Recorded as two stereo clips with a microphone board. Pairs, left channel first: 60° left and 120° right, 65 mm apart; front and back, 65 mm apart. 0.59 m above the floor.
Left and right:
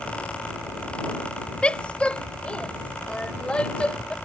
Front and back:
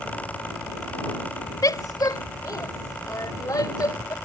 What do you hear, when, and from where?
1.6 s a woman speaking: 15° right